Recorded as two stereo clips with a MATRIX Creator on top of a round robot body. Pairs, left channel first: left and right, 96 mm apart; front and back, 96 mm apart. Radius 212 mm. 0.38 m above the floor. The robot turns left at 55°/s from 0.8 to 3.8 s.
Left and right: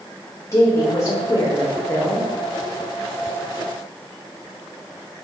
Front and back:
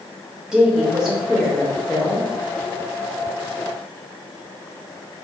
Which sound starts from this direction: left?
A woman speaking, at 0.5 s.